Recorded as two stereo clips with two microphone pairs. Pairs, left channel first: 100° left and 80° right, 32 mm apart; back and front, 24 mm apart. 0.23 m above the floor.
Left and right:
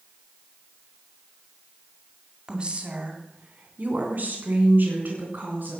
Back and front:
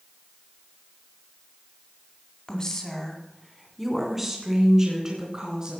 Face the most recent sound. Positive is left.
turn(degrees=-70)